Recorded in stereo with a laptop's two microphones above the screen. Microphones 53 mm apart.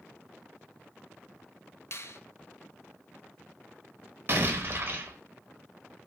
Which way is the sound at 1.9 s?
55° left (ahead or behind).